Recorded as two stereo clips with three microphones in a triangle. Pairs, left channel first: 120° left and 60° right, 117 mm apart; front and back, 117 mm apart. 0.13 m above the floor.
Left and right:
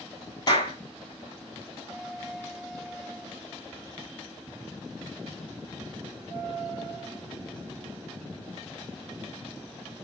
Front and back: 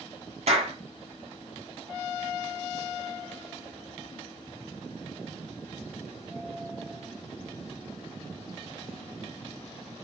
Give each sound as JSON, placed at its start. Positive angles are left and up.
{"t": 0.5, "sound": "a clap", "azimuth_deg": 170, "distance_m": 3.5}